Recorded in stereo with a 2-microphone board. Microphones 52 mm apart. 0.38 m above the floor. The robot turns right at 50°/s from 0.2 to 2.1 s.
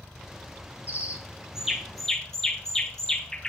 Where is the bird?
35° right (ahead or behind), 1.5 m; by 3.5 s 10° left (ahead or behind), 1.5 m.